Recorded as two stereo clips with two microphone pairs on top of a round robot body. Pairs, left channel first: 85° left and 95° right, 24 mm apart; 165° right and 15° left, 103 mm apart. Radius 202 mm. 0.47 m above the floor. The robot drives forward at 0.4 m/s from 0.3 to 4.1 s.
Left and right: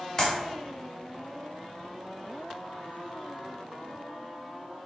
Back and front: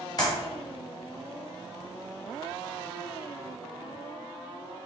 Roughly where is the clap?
Behind left.